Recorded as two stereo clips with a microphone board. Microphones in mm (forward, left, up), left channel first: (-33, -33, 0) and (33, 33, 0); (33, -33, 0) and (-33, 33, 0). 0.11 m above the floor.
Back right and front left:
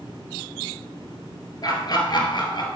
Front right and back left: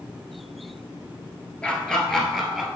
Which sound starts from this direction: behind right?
Laughter, at 1.6 s.